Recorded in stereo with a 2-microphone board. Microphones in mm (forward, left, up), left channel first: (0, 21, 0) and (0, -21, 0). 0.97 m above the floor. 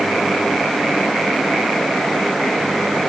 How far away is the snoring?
I don't hear snoring.